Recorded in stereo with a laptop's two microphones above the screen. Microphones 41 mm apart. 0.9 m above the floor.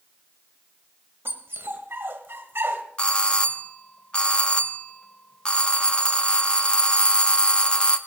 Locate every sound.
1.2 s a dog barking: 75° right (ahead or behind), 1.5 m
3.0 s a doorbell: 25° left (ahead or behind), 0.7 m